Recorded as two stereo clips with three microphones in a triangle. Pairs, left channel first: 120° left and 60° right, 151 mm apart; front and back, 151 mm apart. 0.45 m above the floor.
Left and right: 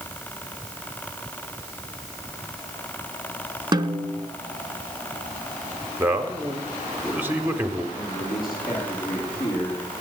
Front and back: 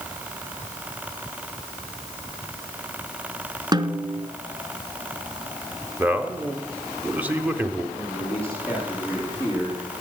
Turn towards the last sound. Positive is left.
turn(degrees=110)